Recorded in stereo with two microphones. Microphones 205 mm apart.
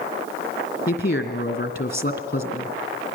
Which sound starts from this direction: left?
A man speaking, at 0.9 s.